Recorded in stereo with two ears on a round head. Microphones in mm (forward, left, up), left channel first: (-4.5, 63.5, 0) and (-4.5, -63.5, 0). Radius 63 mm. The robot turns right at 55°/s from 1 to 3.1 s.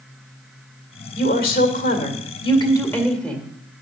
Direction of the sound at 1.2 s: 65° left.